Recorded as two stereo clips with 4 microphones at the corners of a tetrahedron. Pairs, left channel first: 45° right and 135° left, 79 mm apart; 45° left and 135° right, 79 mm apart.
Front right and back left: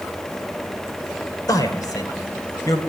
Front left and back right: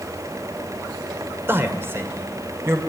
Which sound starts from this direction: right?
A man speaking, at 1.5 s.